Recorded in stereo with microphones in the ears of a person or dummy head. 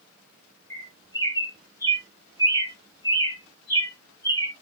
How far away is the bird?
About 1.1 m.